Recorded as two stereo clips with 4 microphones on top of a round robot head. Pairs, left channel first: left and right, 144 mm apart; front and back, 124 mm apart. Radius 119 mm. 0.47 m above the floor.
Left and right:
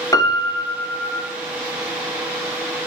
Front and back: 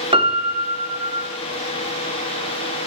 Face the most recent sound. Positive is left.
turn(degrees=150)